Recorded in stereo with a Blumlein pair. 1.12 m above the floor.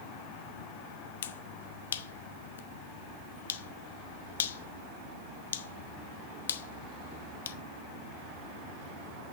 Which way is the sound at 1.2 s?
60° left.